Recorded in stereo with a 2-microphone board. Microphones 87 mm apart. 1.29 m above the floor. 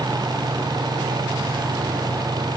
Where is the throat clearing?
I don't hear throat clearing.